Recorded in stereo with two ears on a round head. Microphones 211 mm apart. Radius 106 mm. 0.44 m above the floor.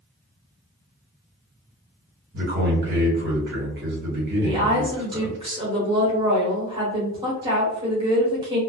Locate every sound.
2.3 s a man speaking: 50° right (ahead or behind), 1.7 m
4.4 s a woman speaking: 20° right (ahead or behind), 1.0 m